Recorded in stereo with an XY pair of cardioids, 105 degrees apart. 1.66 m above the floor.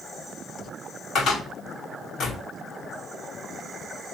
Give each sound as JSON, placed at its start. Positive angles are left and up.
{"t": 1.1, "sound": "a cupboard door", "azimuth_deg": 60, "distance_m": 2.0}